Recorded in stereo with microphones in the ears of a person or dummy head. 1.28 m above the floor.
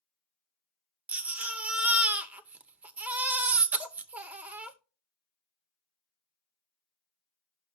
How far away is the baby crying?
About 0.7 m.